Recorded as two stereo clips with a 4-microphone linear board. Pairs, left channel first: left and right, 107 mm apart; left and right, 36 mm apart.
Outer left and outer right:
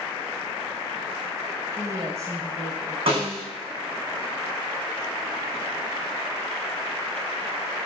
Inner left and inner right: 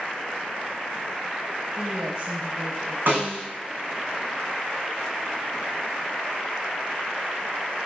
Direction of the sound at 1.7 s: 25° right (ahead or behind).